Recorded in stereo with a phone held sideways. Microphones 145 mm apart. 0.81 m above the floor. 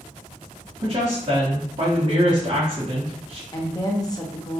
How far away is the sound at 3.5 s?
About 0.8 m.